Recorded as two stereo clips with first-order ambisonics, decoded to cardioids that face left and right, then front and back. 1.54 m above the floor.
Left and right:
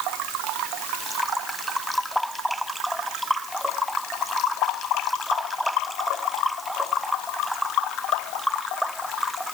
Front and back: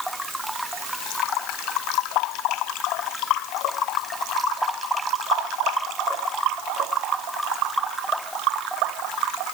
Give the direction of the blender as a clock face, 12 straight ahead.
No blender in this recording.